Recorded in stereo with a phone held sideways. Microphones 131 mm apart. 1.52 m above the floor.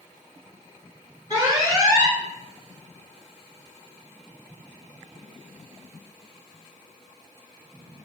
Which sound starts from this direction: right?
An alarm, at 1.3 s.